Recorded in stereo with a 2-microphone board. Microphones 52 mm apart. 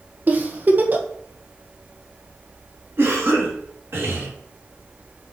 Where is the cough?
50° right (ahead or behind), 3 m.